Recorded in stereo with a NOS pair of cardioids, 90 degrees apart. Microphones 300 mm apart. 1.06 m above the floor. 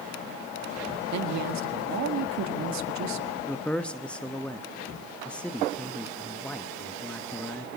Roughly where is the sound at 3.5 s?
Ahead.